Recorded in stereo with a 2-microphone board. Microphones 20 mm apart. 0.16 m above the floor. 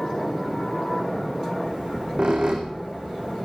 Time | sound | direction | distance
1.6 | a squeak | 55° right (ahead or behind) | 2.5 m